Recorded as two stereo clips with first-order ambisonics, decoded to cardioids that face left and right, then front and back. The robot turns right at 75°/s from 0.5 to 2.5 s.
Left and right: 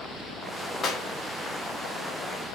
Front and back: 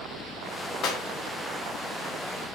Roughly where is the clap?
Ahead left.